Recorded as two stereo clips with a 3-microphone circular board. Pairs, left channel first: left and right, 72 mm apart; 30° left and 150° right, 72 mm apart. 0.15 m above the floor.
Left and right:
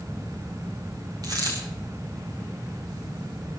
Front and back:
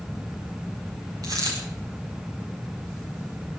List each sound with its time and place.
1.2 s a dropped coin: 120° right, 7 m